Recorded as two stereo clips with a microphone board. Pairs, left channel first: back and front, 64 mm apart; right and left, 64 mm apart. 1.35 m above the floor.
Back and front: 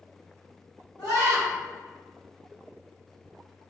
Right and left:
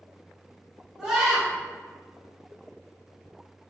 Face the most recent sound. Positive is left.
turn(degrees=170)